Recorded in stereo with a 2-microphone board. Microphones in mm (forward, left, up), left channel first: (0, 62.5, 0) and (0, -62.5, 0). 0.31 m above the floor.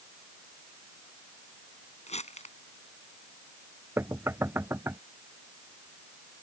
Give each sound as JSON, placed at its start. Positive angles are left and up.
{"t": 2.1, "sound": "crumpling", "side_deg": 60}
{"t": 4.0, "sound": "knocking", "side_deg": -20}